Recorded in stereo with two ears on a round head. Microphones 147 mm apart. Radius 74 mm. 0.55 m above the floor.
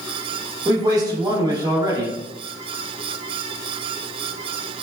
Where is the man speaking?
25° right (ahead or behind), 0.8 m.